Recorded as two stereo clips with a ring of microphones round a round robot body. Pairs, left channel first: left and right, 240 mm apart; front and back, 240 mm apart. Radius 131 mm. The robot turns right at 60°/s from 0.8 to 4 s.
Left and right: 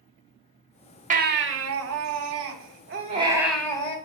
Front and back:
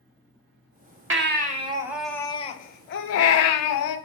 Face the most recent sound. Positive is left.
turn(degrees=30)